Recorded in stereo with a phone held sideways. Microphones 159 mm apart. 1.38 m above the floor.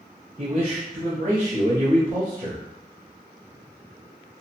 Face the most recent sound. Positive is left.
turn(degrees=-50)  # may be behind; listen again after turning